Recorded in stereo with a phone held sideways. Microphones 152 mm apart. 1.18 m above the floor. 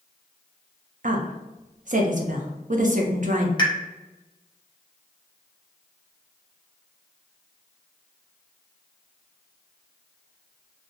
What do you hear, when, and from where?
1.0 s a woman speaking: 60° right (ahead or behind), 0.6 m
3.6 s a pop: 30° left (ahead or behind), 0.7 m